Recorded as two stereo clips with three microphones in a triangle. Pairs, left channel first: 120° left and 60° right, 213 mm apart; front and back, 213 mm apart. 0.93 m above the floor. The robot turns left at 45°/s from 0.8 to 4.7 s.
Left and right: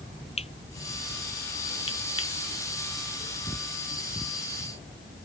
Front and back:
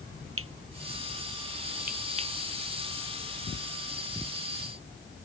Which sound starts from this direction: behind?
Cutlery clinking, at 0.4 s.